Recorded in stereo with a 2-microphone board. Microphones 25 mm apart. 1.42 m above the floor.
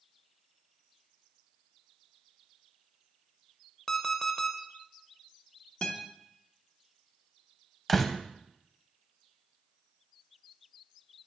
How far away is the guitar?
About 0.9 m.